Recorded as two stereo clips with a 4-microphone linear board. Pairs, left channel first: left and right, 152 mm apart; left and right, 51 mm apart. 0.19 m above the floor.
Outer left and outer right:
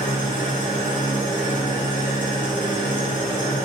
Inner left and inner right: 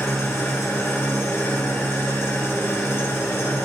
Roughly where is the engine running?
Left.